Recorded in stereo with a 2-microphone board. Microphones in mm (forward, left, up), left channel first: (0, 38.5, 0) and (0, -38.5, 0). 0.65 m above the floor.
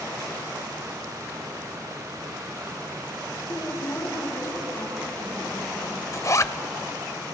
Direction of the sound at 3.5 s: 45° left (ahead or behind).